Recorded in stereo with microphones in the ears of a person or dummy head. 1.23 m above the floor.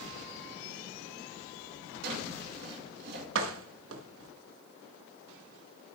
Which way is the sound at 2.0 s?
55° right (ahead or behind).